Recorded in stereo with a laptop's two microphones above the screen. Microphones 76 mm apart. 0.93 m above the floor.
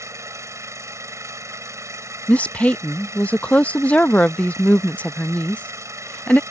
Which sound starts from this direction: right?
An engine running, at 0.0 s.